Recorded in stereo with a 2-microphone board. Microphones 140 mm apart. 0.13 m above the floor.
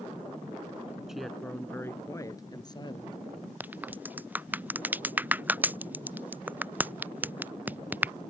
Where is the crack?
10° right (ahead or behind).